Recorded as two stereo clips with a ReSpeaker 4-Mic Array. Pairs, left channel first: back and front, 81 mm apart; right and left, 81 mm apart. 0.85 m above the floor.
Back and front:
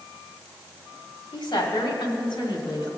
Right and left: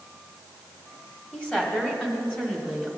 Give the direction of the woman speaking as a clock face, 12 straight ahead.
6 o'clock.